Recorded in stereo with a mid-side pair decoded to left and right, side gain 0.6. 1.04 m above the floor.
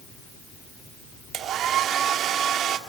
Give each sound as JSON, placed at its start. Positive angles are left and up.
{"t": 1.3, "sound": "a hair dryer", "azimuth_deg": -55, "distance_m": 2.0}